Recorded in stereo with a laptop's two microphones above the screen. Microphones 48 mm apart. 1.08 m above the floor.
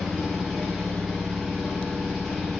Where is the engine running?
Centre (ahead or behind), 0.8 m.